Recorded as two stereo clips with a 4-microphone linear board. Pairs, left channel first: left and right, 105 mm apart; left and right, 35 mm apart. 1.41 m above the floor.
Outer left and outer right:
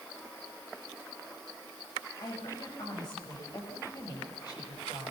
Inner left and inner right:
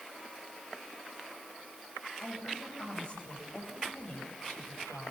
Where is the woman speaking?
40° left (ahead or behind), 9.5 m.